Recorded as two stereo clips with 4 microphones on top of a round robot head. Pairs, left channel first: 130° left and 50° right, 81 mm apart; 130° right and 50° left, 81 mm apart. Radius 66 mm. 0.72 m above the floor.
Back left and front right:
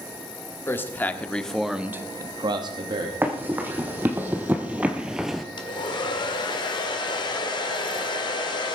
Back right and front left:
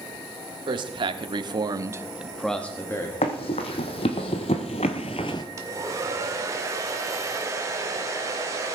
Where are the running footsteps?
120° right, 2 m; by 5.4 s 145° right, 0.7 m.